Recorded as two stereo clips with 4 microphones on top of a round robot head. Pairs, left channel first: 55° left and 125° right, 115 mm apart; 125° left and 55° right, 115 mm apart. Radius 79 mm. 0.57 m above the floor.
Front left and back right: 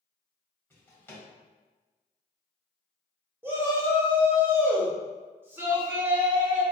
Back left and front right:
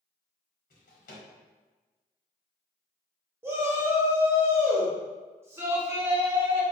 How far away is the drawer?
About 1.0 m.